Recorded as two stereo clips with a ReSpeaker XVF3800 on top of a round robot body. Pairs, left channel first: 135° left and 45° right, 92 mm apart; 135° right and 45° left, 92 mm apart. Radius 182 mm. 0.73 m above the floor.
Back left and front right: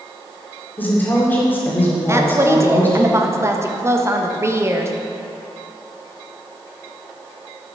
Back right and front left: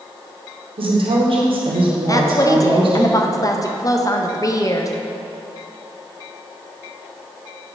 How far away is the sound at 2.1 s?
About 1.2 m.